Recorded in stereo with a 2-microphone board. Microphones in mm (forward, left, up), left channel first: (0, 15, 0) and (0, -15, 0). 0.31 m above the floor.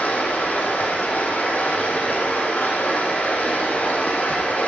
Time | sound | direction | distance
0.0 | running water | 85° left | 10 m